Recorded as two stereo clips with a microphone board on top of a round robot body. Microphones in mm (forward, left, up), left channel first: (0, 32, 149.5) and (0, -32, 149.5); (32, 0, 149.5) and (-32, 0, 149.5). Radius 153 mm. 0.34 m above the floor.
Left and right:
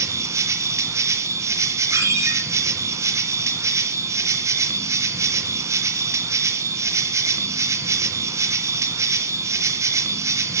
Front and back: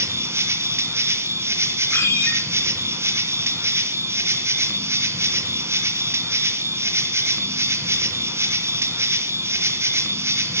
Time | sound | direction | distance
0.0 | an insect | 130° right | 2 m
1.9 | a ringtone | 50° right | 8.5 m